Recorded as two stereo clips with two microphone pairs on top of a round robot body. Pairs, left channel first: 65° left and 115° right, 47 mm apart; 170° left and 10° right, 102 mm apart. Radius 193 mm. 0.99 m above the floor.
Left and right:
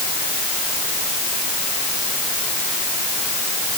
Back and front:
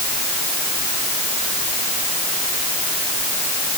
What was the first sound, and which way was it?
Only background noise.